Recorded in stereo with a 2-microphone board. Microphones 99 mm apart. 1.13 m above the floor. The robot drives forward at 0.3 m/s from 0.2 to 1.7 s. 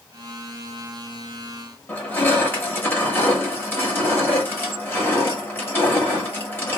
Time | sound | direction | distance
1.9 | crushing | 20° left (ahead or behind) | 1.0 m